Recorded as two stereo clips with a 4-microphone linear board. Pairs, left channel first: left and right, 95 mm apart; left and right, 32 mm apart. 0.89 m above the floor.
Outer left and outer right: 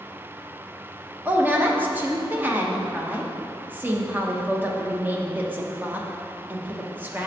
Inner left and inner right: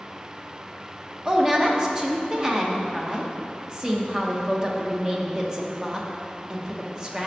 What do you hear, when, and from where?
1.2 s a woman speaking: 20° right (ahead or behind), 0.7 m